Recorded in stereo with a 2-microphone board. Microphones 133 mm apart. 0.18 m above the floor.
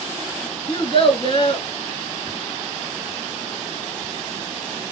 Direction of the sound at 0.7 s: 45° left (ahead or behind).